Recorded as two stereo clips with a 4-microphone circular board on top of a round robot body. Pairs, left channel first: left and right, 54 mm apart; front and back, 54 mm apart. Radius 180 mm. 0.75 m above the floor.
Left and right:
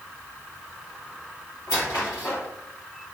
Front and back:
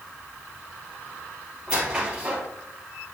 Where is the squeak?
110° left, 3 m.